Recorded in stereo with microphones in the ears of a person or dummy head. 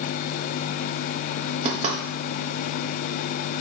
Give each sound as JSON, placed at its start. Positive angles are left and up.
{"t": 1.6, "sound": "knocking", "side_deg": -35, "distance_m": 1.6}